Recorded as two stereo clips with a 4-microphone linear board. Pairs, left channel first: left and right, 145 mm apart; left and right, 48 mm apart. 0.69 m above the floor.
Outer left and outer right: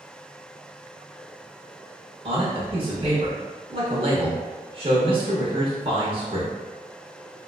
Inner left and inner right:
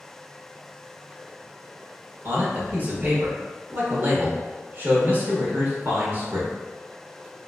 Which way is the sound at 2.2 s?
40° right (ahead or behind).